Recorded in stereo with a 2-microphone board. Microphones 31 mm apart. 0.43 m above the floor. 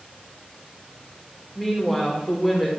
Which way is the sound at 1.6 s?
5° left (ahead or behind).